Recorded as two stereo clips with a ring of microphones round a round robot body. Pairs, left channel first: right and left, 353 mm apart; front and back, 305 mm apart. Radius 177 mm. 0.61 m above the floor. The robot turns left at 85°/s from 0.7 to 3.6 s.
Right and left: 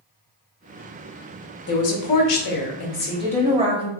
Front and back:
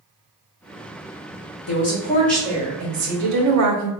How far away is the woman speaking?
About 0.9 m.